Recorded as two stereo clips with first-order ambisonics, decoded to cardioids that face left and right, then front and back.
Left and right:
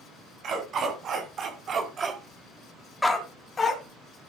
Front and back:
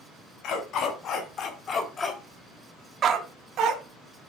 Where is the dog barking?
40° right, 3.5 m; by 3.8 s 155° left, 2.5 m.